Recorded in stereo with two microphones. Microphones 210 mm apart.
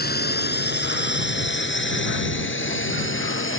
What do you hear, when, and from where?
0.0 s a drone: 50° left (ahead or behind); by 3.6 s 70° left (ahead or behind)